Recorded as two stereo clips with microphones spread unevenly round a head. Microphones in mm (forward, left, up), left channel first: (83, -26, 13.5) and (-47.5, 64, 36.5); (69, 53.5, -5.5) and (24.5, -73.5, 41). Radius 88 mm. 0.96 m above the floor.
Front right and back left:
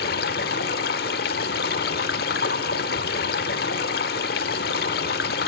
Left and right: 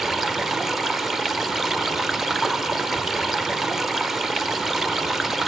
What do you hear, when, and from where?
0.0 s running water: 45° right, 0.8 m